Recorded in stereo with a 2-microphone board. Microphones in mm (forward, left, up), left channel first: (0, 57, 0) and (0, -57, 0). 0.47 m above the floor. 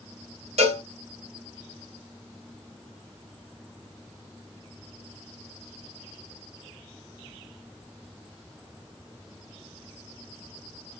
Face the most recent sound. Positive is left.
turn(degrees=-65)  # may be behind; listen again after turning